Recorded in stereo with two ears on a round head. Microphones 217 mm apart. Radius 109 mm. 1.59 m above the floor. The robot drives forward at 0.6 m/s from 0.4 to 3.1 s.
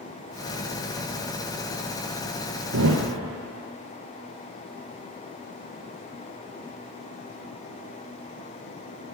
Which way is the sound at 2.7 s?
55° right (ahead or behind).